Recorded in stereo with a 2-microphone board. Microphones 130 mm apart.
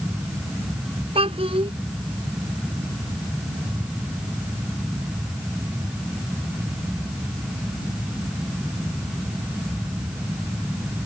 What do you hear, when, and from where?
1.1 s a child speaking: 50° right (ahead or behind)